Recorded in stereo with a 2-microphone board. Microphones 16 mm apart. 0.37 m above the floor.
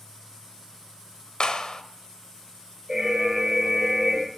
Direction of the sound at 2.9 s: 20° right (ahead or behind).